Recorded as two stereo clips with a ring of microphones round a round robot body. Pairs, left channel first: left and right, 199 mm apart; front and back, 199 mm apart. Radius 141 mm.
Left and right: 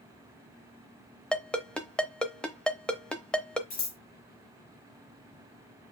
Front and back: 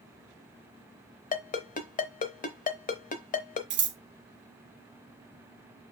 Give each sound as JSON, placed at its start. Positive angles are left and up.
{"t": 1.3, "sound": "a ringtone", "azimuth_deg": 5, "distance_m": 0.8}
{"t": 3.7, "sound": "scissors", "azimuth_deg": 150, "distance_m": 1.2}